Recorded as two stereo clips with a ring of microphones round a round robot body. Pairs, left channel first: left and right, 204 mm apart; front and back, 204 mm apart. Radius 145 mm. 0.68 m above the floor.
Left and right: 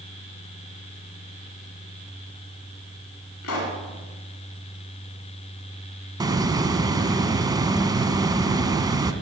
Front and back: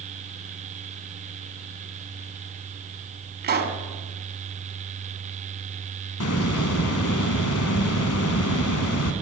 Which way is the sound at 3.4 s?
135° left.